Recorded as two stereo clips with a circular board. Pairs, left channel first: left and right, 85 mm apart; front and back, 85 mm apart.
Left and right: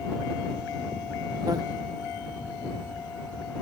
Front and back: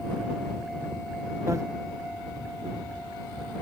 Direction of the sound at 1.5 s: 130° right.